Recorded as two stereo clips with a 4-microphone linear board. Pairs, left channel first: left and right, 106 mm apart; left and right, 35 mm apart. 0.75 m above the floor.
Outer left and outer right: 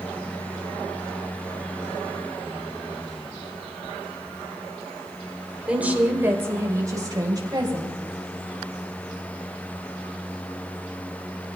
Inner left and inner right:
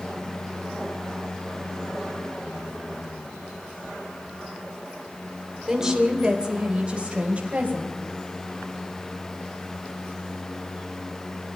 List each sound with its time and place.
5.7 s a woman speaking: 10° right (ahead or behind), 2.5 m; by 8.0 s 45° right (ahead or behind), 3.5 m